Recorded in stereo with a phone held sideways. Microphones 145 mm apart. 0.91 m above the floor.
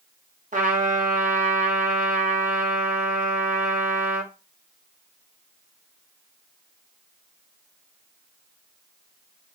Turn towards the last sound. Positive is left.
turn(degrees=-60)  # may be behind; listen again after turning